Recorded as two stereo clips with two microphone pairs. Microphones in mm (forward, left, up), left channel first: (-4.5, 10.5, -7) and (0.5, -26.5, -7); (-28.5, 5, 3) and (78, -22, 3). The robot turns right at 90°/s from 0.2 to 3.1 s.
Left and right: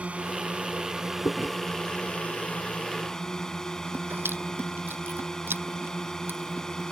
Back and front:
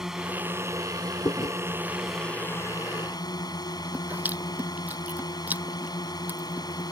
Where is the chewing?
105° left; by 6.9 s 90° right.